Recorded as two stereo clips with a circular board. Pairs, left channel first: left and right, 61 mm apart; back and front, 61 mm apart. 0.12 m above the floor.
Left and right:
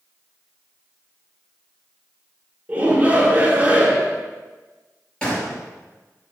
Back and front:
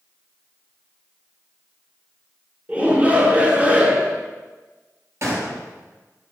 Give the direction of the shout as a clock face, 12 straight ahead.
2 o'clock.